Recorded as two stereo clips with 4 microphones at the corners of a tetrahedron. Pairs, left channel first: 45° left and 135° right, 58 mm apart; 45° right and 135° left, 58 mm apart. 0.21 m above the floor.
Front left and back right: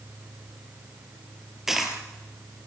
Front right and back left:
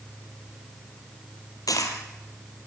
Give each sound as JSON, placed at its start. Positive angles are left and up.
{"t": 1.7, "sound": "a dropped coin", "azimuth_deg": -50, "distance_m": 3.0}